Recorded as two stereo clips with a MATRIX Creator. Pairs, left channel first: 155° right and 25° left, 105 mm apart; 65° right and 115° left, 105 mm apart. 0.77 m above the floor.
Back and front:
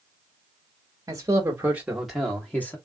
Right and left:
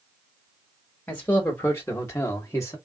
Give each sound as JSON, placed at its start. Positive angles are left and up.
{"t": 1.1, "sound": "a man speaking", "azimuth_deg": -5, "distance_m": 1.0}